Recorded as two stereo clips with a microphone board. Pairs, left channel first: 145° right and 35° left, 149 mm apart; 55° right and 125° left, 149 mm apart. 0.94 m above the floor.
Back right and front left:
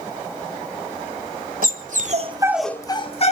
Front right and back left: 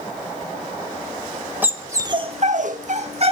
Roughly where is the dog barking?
Ahead left.